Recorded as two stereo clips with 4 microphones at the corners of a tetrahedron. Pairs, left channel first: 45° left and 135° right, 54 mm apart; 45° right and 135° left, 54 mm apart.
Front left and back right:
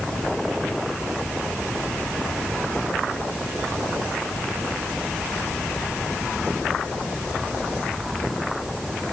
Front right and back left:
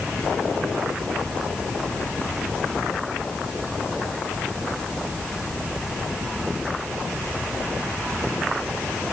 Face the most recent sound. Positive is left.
No sound to turn to.